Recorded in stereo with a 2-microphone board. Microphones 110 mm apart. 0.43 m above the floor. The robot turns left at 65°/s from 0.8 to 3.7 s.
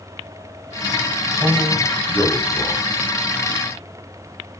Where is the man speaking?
145° right, 1.7 m; by 2.9 s 125° left, 1.7 m.